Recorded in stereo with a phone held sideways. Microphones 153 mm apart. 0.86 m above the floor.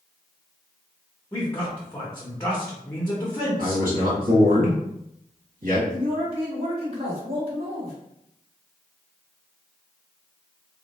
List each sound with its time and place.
1.3 s a man speaking: 15° left (ahead or behind), 0.8 m
3.6 s a man speaking: 70° right (ahead or behind), 1.8 m
5.9 s a man speaking: 40° right (ahead or behind), 1.8 m